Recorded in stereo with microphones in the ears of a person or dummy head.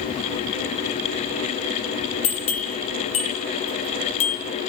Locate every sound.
2.2 s a bell: 35° left (ahead or behind), 1.9 m